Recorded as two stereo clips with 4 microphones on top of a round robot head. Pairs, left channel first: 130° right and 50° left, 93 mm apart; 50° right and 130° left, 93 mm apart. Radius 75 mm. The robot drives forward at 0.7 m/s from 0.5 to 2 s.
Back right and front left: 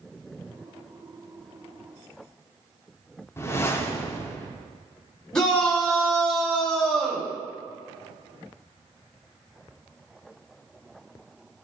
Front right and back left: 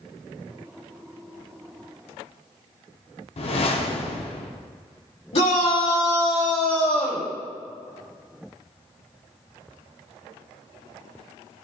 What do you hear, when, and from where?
3.4 s a whoosh: 65° right, 0.7 m
5.3 s a shout: 50° right, 2.5 m